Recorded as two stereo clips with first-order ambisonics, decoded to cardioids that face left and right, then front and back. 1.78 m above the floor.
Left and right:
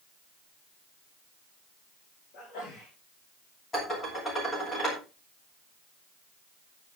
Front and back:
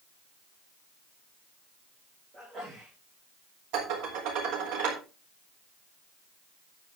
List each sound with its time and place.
2.3 s a sneeze: 115° left, 5 m
3.7 s dishes clattering: 160° left, 4 m